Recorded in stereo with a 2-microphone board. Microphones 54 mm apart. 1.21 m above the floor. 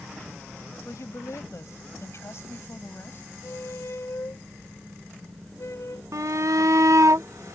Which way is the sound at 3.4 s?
60° left (ahead or behind).